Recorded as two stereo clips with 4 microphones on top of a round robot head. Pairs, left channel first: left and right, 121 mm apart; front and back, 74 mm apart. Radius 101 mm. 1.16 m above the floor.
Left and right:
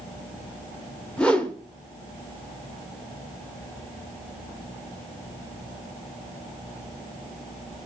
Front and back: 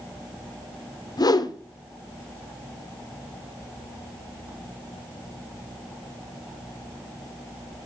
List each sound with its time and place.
1.2 s a whoosh: 10° left, 1.0 m